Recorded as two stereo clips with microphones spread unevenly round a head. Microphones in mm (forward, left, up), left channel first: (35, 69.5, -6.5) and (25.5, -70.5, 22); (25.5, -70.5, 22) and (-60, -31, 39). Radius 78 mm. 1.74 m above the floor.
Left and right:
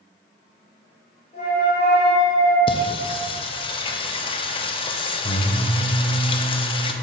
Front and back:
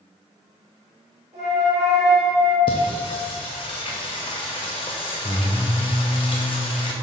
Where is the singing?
35° left, 0.6 m.